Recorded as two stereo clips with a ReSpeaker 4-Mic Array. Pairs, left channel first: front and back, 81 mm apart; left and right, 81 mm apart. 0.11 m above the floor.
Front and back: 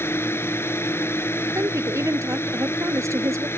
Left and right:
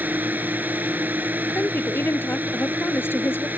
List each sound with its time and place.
0.0 s a drone: 40° right
1.6 s a woman speaking: 140° left